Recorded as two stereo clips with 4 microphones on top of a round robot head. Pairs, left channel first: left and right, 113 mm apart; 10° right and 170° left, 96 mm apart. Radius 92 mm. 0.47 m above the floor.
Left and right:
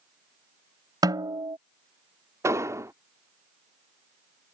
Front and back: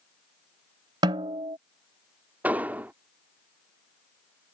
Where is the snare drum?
145° right.